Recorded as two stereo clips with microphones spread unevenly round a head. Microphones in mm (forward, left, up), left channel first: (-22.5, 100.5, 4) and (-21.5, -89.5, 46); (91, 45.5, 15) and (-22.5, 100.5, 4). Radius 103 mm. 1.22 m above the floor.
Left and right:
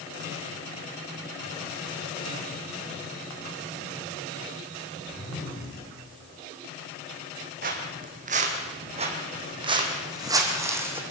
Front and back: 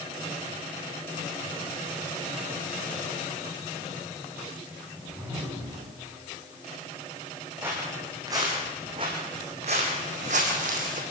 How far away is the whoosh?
About 9.5 m.